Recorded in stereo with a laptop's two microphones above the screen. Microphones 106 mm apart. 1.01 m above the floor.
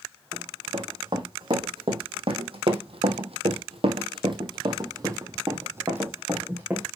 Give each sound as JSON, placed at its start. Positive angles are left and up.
{"t": 0.3, "sound": "running footsteps", "side_deg": -45, "distance_m": 4.5}